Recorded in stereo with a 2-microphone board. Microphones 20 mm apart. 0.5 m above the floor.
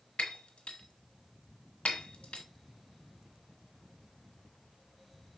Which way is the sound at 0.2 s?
75° left (ahead or behind).